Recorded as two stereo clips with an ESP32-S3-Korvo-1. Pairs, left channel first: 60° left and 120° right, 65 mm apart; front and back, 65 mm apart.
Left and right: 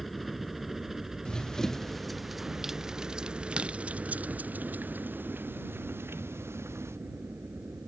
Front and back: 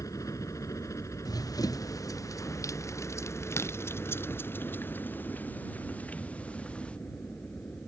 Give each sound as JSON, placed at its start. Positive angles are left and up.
{"t": 0.0, "sound": "a helicopter", "azimuth_deg": -30}
{"t": 1.2, "sound": "running footsteps", "azimuth_deg": -20}